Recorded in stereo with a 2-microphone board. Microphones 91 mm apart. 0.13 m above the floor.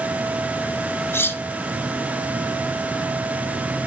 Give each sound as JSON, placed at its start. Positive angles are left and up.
{"t": 1.1, "sound": "cutlery clinking", "side_deg": 25, "distance_m": 1.1}